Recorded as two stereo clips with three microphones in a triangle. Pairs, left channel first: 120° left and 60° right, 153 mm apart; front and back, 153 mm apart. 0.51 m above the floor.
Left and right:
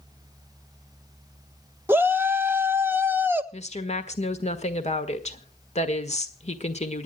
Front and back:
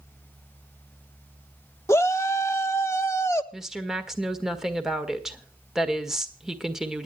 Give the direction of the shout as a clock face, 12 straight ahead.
1 o'clock.